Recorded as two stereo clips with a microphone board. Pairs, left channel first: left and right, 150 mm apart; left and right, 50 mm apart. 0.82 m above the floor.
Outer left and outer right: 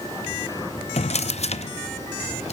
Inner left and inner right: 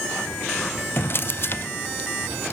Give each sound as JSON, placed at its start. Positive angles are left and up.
{"t": 1.0, "sound": "a drawer", "side_deg": 45, "distance_m": 0.5}